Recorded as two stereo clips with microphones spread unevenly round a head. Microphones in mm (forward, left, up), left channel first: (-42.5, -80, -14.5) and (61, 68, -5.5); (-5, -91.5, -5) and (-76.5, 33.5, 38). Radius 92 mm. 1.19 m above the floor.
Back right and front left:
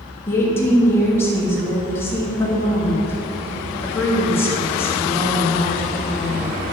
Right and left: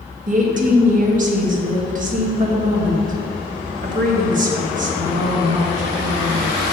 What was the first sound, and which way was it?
A woman speaking, 155° left.